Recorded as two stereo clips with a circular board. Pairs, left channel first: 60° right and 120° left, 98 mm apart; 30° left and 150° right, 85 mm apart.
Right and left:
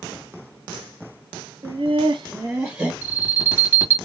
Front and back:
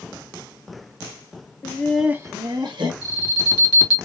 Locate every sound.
1.6 s laughter: 85° left, 0.7 m; by 2.9 s 170° right, 1.3 m
3.0 s an alarm: 50° left, 2 m